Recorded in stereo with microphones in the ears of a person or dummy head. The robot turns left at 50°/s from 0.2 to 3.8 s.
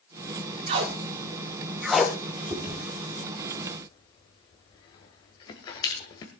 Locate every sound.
0.7 s tape being pulled: 25° right (ahead or behind), 0.9 m; by 2.2 s 10° left (ahead or behind), 0.9 m
2.5 s chewing: 10° right (ahead or behind), 1.8 m; by 6.3 s 35° left (ahead or behind), 1.8 m